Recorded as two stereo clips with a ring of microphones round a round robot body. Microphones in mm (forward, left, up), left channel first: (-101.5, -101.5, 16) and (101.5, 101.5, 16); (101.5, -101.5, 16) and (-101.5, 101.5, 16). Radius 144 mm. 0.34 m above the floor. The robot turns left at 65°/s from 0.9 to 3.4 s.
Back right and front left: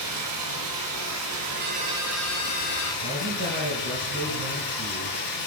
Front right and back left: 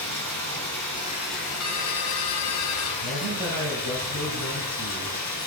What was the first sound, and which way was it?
Running water, 35° left.